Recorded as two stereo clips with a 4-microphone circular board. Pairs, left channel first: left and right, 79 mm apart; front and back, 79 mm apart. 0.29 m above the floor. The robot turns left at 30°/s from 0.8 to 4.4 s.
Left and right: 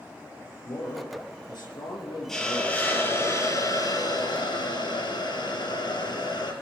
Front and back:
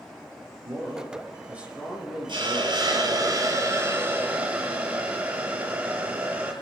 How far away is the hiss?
About 4.5 m.